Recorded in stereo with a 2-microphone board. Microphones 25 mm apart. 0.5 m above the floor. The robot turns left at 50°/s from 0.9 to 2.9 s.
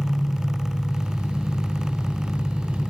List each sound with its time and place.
0.0 s an engine running: straight ahead, 4.5 m; by 2.9 s 100° right, 4.5 m